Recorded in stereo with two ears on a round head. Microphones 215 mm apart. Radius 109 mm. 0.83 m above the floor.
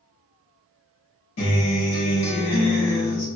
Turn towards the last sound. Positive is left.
turn(degrees=60)  # may be behind; listen again after turning